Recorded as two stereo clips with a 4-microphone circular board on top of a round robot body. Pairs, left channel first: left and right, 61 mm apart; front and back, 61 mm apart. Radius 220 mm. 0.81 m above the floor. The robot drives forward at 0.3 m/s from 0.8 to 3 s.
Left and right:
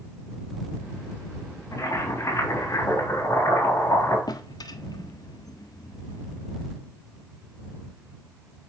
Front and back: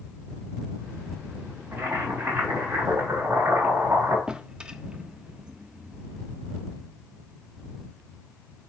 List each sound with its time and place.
1.7 s boiling: 120° left, 4 m; by 4.2 s 125° left, 4.5 m
4.3 s a drawer: 105° left, 0.7 m